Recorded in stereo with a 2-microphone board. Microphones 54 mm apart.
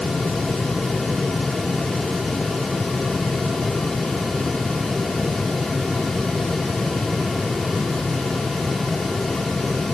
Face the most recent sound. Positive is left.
No sound to turn to.